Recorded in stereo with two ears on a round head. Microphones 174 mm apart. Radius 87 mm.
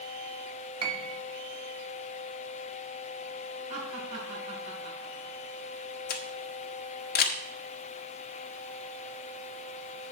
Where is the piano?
25° right (ahead or behind), 0.9 m.